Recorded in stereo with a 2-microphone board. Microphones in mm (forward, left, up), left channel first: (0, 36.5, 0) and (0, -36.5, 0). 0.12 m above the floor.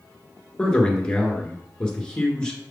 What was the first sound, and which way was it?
A man speaking, 10° left (ahead or behind).